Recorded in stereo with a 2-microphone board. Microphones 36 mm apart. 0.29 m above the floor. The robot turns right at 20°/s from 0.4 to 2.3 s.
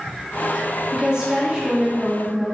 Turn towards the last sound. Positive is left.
turn(degrees=-30)  # may be behind; listen again after turning